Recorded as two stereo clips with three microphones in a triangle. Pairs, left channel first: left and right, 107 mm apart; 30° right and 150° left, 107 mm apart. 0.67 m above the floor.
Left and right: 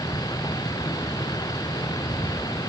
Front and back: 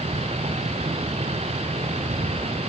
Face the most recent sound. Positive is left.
turn(degrees=145)